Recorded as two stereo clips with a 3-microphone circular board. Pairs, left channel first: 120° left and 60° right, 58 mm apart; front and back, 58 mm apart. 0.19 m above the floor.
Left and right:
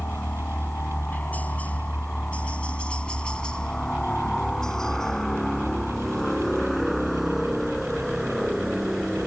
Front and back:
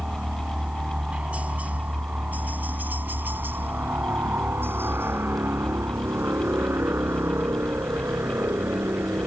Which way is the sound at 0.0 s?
120° left.